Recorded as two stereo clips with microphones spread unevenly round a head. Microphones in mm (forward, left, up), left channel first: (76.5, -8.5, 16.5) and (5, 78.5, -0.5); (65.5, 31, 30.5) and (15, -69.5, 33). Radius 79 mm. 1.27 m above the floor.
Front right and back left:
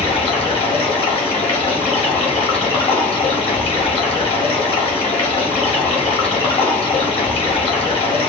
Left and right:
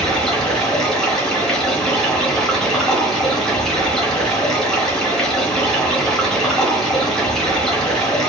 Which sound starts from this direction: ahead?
Running water, at 0.0 s.